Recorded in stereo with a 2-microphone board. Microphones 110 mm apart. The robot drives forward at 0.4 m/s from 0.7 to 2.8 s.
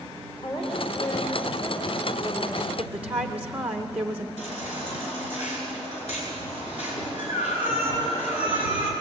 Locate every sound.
0.4 s a woman speaking: 55° left (ahead or behind), 4 m; by 2.7 s 65° left (ahead or behind), 3.5 m
2.8 s a woman speaking: 10° right (ahead or behind), 1.4 m
4.4 s a baby crying: 80° left, 7.5 m